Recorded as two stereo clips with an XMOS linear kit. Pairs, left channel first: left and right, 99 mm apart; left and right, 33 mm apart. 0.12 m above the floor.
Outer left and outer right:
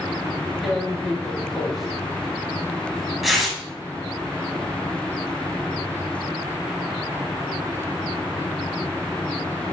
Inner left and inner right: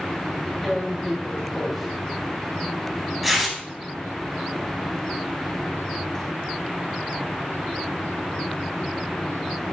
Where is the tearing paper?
Centre (ahead or behind), 1.1 m.